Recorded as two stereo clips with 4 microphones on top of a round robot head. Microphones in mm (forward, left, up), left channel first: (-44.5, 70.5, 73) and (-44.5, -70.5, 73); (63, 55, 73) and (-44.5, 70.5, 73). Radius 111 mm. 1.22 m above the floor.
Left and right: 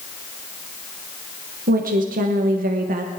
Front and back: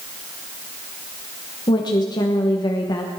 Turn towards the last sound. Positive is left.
turn(degrees=-65)